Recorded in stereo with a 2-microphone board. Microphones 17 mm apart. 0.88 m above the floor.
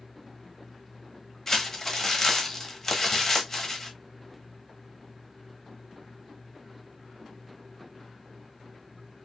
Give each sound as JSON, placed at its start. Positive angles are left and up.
{"t": 1.5, "sound": "crumpling", "side_deg": 20, "distance_m": 1.1}